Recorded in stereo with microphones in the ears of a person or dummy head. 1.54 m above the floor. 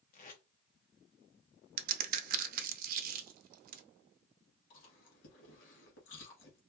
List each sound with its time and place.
0.1 s tape being pulled: 45° left (ahead or behind), 0.7 m
1.8 s a crack: 55° right (ahead or behind), 0.6 m
4.7 s chewing: 70° left (ahead or behind), 1.7 m